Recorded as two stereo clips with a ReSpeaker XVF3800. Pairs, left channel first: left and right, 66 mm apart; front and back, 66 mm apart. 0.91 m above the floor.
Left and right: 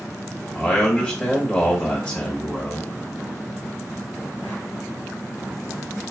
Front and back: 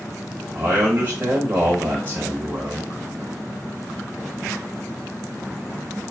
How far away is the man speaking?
About 1.1 m.